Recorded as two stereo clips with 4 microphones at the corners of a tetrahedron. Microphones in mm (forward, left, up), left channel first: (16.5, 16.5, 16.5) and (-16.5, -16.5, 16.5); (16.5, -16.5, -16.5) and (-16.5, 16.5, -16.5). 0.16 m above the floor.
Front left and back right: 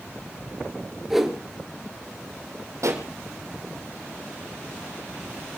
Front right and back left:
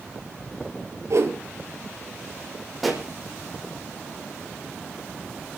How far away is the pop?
About 4.5 m.